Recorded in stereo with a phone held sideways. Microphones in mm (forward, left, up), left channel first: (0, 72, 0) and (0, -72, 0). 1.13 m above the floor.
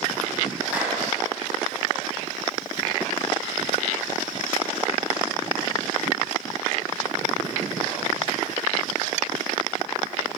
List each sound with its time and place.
0.7 s a clap: 10° right (ahead or behind), 8 m